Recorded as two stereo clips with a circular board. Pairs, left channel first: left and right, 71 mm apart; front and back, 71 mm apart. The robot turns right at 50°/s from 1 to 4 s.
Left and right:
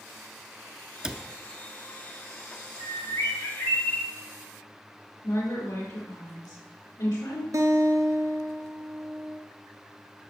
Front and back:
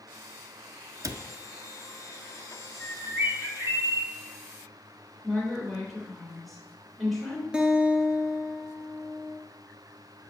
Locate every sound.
1.0 s a cupboard door: 165° right, 0.5 m; by 1.3 s 155° right, 0.5 m
2.8 s a bird: 100° left, 1.7 m; by 4.1 s 160° left, 1.7 m
5.2 s a woman speaking: 90° left, 3.5 m
7.5 s a guitar: 105° right, 0.8 m